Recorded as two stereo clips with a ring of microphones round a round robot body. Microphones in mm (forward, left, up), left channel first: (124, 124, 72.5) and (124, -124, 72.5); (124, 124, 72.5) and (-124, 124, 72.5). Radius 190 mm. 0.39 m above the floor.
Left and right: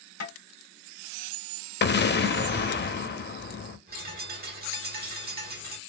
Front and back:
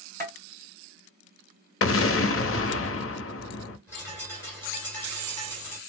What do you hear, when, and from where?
0.2 s tapping: 75° left, 2.5 m
1.8 s an explosion: 40° left, 0.8 m
3.9 s a bird: 75° right, 1.6 m